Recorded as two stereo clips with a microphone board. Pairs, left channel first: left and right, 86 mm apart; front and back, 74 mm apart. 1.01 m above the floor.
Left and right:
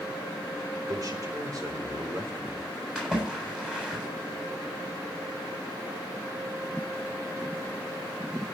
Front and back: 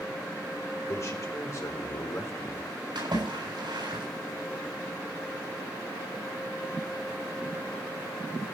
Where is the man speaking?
45° right, 4.5 m; by 2.7 s 50° right, 3 m.